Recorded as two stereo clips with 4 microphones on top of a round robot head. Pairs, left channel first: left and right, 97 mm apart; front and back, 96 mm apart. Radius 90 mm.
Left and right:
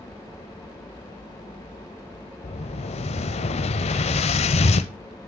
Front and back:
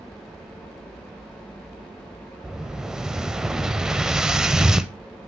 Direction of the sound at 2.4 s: 95° left.